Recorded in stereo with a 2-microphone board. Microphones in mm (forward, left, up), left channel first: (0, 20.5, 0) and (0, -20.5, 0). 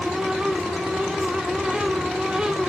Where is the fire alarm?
I don't hear a fire alarm.